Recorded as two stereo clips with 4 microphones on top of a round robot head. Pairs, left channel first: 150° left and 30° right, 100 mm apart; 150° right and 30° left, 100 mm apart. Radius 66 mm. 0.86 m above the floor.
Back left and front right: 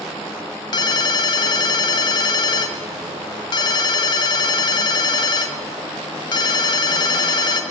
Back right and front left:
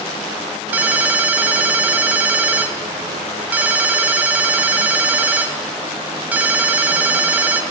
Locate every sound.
0.7 s a ringtone: 105° left, 1.1 m